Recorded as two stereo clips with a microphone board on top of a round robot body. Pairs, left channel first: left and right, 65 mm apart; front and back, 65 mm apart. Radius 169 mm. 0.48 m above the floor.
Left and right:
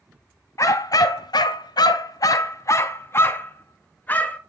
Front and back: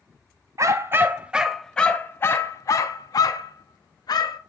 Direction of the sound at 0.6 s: 135° left.